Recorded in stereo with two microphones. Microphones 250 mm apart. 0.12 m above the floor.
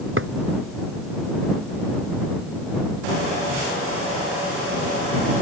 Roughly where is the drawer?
Right.